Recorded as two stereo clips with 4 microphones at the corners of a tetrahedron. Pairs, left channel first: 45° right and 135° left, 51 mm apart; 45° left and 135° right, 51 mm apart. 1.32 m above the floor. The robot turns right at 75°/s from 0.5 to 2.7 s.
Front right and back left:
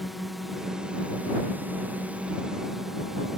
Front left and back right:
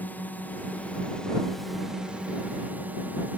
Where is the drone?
50° left; by 3.4 s 145° right.